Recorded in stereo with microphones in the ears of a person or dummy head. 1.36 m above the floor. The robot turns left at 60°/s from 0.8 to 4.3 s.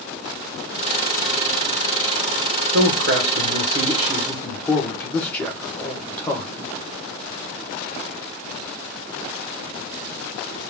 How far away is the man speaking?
About 1.7 m.